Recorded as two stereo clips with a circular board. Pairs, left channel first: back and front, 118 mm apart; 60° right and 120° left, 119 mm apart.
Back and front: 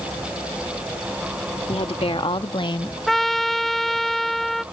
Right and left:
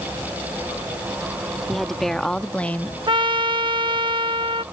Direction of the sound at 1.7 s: 150° right.